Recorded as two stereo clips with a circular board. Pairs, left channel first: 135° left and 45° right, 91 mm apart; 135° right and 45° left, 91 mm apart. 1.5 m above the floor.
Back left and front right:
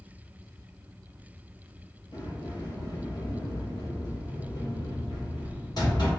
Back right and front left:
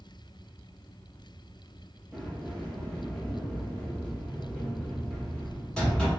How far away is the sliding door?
About 1.3 m.